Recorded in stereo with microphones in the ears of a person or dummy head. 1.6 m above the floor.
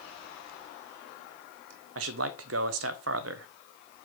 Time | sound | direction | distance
1.9 | a man speaking | 60° right (ahead or behind) | 0.8 m